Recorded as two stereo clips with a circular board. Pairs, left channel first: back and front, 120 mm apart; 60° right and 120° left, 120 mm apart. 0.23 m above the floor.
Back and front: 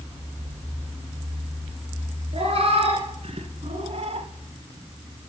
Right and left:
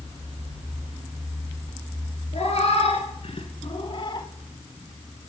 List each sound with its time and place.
2.3 s a cat meowing: 35° right, 1.8 m; by 4.3 s 10° right, 0.7 m